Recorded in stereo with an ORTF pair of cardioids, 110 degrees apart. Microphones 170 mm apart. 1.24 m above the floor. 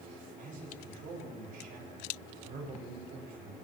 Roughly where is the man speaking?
Ahead right.